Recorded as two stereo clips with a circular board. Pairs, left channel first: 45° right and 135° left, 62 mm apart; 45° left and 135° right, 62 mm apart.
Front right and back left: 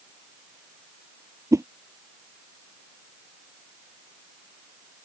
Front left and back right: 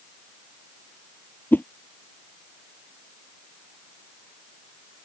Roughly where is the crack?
No crack in this recording.